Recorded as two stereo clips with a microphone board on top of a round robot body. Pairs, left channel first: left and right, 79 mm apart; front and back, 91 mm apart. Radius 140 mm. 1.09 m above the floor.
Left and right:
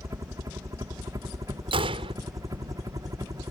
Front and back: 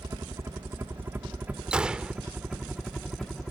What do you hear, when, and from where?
0.0 s a helicopter: 130° right; by 3.5 s 80° right
1.7 s a gunshot: 100° right